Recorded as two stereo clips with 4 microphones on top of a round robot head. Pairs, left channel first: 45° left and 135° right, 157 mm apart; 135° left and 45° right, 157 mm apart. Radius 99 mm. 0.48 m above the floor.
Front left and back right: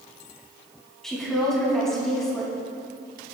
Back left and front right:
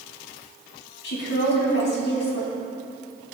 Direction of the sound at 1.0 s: 135° left.